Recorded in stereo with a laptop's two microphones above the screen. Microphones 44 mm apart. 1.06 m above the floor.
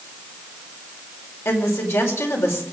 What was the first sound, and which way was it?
A woman speaking, 80° left.